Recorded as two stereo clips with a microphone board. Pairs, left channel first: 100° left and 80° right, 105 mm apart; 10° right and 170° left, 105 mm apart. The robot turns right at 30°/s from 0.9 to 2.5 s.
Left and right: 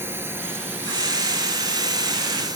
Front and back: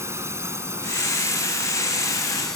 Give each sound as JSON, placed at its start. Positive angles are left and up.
{"t": 0.0, "sound": "a drone", "azimuth_deg": -140}